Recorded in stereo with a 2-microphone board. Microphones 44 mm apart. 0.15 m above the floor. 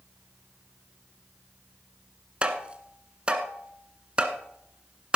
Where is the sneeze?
I don't hear a sneeze.